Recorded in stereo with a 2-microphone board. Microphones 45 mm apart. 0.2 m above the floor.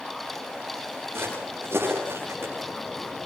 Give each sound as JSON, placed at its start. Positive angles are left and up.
{"t": 1.1, "sound": "footsteps", "side_deg": -55, "distance_m": 10.0}